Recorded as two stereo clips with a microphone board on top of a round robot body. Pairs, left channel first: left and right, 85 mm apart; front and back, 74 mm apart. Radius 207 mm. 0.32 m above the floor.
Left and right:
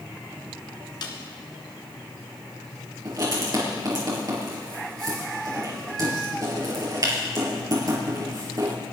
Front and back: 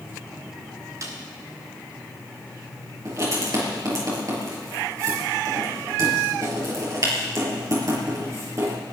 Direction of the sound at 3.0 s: 135° right.